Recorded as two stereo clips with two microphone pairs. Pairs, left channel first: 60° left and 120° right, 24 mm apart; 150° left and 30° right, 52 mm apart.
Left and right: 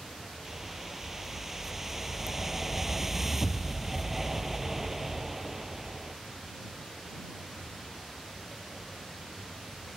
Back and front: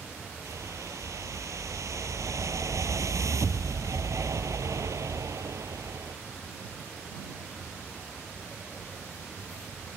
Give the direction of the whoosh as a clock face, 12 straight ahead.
1 o'clock.